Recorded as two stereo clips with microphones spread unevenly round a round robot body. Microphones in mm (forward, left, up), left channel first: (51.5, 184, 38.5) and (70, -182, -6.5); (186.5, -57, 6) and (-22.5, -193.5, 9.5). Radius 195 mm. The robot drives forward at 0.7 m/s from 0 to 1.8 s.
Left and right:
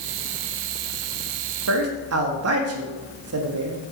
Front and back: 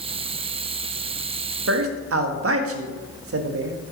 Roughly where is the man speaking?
Behind right.